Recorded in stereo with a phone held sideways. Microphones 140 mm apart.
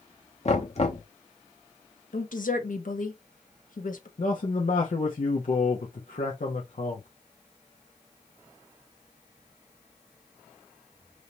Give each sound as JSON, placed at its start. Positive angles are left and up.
{"t": 0.5, "sound": "knocking", "side_deg": 50, "distance_m": 1.0}
{"t": 2.1, "sound": "a woman speaking", "side_deg": 75, "distance_m": 1.1}
{"t": 4.2, "sound": "a man speaking", "side_deg": 70, "distance_m": 1.0}